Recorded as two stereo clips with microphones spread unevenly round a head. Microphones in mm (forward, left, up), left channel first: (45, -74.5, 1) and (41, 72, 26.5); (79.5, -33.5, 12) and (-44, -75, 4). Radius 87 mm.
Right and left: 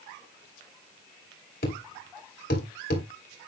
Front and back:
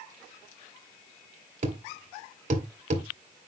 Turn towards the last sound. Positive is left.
turn(degrees=-135)